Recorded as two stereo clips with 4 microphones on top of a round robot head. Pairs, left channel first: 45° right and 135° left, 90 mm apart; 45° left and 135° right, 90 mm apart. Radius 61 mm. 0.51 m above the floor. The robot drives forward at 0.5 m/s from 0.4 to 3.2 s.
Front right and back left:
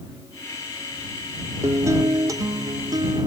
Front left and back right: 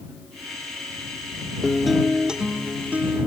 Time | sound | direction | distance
1.6 | a guitar | 130° left | ?